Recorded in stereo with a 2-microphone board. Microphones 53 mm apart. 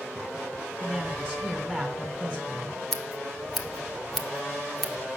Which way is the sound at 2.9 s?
5° left (ahead or behind).